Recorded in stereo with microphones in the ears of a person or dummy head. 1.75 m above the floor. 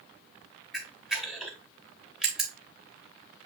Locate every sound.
0.7 s a camera shutter: 5° right (ahead or behind), 0.9 m